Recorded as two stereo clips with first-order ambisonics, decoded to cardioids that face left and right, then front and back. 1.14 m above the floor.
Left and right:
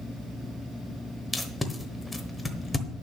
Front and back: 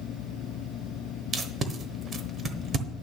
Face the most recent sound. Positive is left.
turn(degrees=165)